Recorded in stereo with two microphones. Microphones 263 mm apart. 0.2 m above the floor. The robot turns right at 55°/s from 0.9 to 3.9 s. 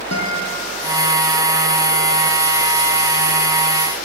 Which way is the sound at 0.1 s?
80° left.